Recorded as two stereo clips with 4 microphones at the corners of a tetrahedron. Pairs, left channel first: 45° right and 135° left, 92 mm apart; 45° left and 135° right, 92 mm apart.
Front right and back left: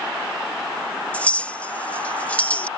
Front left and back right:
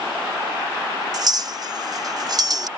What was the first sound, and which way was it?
A clink, 115° right.